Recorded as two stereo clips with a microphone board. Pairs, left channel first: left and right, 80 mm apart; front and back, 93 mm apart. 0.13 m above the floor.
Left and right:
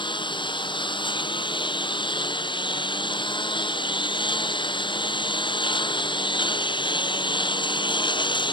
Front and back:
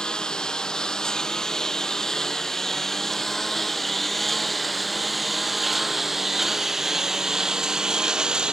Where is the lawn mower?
85° left; by 8.5 s 100° left.